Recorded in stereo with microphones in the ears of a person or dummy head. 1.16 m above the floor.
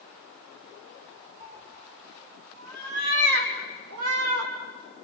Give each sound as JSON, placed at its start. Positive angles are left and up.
{"t": 1.4, "sound": "a cat meowing", "side_deg": -40, "distance_m": 4.0}